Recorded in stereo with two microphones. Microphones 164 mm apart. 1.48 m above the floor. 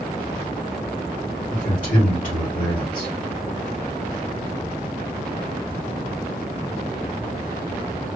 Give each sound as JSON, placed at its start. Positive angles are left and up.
{"t": 1.5, "sound": "a man speaking", "side_deg": 50, "distance_m": 2.5}